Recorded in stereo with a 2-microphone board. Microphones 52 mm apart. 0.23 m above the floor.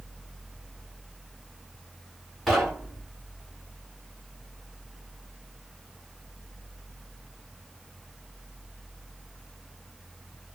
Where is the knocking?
Centre (ahead or behind), 1.5 m.